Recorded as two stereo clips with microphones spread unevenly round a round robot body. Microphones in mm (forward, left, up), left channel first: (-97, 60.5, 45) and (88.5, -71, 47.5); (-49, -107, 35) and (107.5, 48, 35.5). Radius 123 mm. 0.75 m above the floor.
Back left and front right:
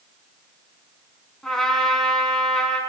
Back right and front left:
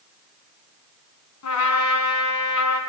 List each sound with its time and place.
1.4 s a trumpet: 125° right, 4.5 m